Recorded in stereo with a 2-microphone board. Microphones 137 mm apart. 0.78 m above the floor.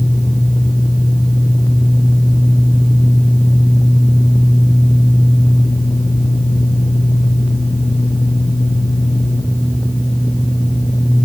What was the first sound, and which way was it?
Only background noise.